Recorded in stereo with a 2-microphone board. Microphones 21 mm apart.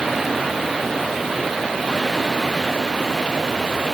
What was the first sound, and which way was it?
Only background noise.